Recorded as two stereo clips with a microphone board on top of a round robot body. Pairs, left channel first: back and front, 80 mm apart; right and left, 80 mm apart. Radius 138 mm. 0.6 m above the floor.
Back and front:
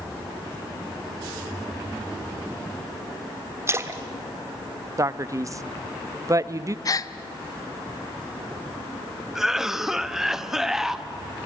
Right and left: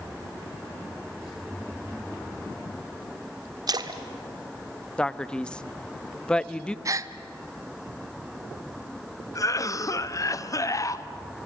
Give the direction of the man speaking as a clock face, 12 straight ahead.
1 o'clock.